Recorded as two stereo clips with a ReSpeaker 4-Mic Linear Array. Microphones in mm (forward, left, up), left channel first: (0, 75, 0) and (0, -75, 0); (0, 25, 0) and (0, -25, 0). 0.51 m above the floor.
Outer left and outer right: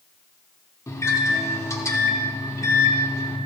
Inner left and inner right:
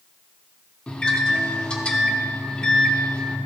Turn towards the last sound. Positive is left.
turn(degrees=20)  # may be behind; listen again after turning